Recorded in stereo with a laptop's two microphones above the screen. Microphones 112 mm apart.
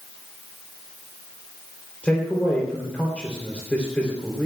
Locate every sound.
2.0 s a man speaking: 10° left (ahead or behind), 3 m